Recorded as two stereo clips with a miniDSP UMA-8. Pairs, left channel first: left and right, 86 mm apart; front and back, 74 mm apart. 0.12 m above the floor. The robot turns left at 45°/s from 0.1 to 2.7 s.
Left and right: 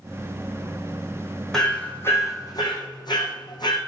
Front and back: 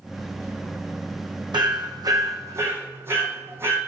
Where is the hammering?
175° left, 2.5 m; by 3.8 s 120° left, 2.5 m.